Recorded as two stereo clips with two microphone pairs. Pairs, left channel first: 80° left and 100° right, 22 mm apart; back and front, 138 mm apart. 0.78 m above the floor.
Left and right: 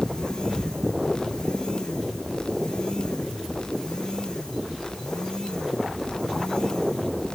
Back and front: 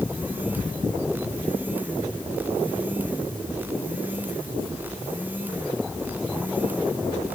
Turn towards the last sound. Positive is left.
No sound to turn to.